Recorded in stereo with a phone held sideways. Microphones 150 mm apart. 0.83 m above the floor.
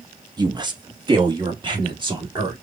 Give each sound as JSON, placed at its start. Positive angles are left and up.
{"t": 0.4, "sound": "a woman speaking", "side_deg": -25, "distance_m": 0.8}